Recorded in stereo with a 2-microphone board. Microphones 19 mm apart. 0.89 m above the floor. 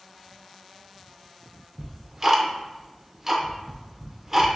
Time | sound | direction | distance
1.8 | ticking | 20° right (ahead or behind) | 0.5 m